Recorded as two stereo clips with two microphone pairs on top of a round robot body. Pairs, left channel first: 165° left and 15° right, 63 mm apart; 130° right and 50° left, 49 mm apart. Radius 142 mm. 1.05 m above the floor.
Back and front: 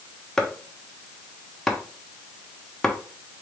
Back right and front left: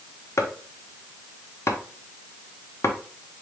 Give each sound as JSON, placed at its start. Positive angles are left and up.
{"t": 0.4, "sound": "chopping", "azimuth_deg": -105, "distance_m": 1.0}